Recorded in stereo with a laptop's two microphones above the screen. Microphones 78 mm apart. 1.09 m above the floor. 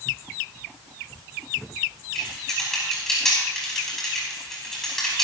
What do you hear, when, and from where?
2.1 s typing on a keyboard: 5° left (ahead or behind), 5 m